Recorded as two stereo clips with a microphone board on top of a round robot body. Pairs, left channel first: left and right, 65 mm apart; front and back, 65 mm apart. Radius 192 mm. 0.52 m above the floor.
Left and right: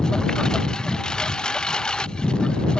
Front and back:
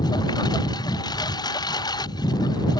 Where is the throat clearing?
I don't hear throat clearing.